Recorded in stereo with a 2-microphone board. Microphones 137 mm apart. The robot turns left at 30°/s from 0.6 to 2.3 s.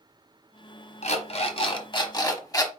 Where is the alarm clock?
70° left, 0.8 m; by 2.7 s 30° left, 0.8 m.